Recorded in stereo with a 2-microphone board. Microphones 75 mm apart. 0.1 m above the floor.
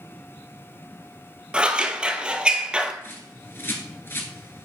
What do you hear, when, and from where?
1.5 s scissors: 15° right (ahead or behind), 0.7 m
3.0 s a bird: 30° left (ahead or behind), 1.2 m